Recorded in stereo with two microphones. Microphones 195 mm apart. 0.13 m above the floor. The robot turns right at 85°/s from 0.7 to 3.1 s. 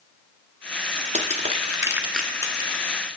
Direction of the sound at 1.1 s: 35° right (ahead or behind).